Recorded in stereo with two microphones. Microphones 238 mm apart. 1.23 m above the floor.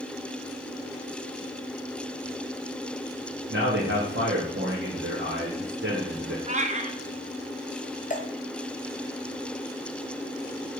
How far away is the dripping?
About 1.2 m.